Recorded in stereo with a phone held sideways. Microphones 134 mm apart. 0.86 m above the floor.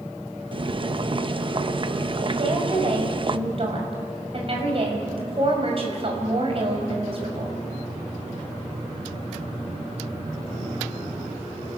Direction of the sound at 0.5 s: 40° right (ahead or behind).